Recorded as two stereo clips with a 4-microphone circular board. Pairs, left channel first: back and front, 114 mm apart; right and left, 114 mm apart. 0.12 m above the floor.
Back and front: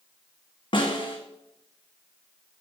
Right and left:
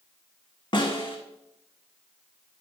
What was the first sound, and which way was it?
A snare drum, 135° right.